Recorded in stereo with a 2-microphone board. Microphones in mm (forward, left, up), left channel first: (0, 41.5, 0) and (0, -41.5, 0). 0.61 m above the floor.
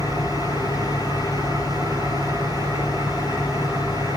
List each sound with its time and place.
0.0 s an engine running: 50° right (ahead or behind), 8 m